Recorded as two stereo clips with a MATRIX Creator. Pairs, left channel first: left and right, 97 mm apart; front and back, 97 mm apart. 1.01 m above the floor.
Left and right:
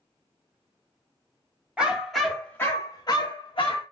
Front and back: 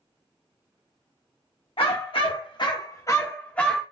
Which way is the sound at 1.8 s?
10° right.